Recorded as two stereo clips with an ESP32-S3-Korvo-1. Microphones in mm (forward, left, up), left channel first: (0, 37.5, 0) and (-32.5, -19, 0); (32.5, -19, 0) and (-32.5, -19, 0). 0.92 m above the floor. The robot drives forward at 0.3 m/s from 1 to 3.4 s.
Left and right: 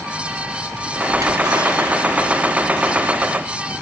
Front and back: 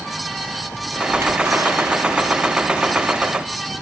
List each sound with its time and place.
1.1 s a splash: 130° right, 10 m